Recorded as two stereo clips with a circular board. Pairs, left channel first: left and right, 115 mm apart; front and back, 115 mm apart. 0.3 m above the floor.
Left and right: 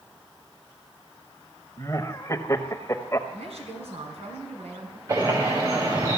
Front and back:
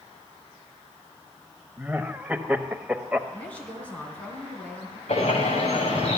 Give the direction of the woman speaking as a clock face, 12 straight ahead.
3 o'clock.